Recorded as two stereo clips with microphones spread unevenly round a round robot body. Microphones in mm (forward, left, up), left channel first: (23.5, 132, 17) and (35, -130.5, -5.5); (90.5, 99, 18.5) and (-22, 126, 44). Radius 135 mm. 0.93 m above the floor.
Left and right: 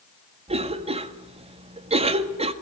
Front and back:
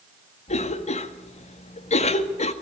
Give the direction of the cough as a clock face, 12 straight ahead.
1 o'clock.